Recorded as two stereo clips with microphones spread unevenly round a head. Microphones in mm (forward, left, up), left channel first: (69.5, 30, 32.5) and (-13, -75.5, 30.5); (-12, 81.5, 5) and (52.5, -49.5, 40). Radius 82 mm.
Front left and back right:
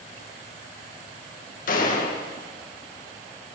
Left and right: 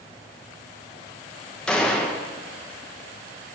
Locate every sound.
1.7 s a gunshot: 35° left, 2 m